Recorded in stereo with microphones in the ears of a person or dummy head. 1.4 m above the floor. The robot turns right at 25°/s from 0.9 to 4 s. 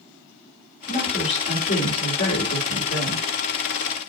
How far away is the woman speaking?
About 3.5 m.